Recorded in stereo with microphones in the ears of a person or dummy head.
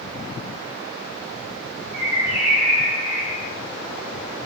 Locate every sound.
1.9 s a bird: 55° right (ahead or behind), 1.3 m